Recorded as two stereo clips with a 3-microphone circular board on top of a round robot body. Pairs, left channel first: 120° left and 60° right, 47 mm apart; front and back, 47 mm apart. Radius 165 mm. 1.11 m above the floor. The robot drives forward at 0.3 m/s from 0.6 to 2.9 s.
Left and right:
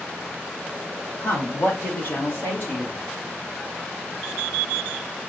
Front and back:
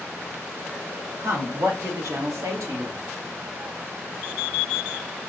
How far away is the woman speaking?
About 3 m.